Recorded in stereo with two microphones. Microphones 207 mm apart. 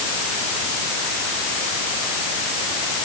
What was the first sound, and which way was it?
Only background noise.